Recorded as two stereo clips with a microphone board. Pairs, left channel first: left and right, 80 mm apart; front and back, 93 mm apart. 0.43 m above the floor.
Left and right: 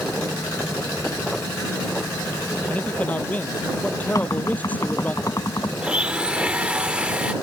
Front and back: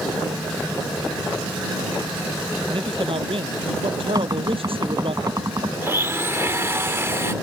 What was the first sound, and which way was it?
A man speaking, 160° left.